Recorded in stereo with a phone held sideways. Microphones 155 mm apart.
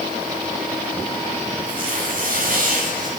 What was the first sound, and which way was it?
Tearing paper, 60° right (ahead or behind).